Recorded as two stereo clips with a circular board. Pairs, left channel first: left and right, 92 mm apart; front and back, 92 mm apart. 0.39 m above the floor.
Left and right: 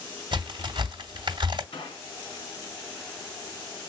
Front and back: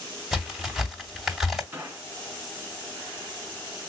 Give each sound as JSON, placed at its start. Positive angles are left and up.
{"t": 0.3, "sound": "a crack", "azimuth_deg": -95, "distance_m": 2.0}
{"t": 1.7, "sound": "a gunshot", "azimuth_deg": 115, "distance_m": 2.5}